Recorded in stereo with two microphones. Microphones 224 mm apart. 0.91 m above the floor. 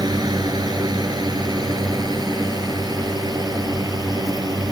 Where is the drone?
15° right (ahead or behind).